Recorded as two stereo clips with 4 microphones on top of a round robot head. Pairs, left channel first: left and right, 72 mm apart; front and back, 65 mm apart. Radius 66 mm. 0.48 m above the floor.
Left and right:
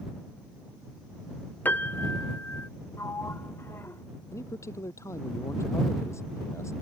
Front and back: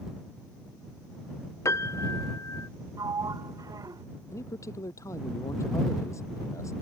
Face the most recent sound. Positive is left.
turn(degrees=40)